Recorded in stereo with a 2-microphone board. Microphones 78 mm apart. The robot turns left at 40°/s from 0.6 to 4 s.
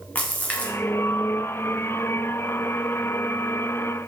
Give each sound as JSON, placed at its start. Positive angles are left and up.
{"t": 0.1, "sound": "a splash", "side_deg": 20, "distance_m": 0.5}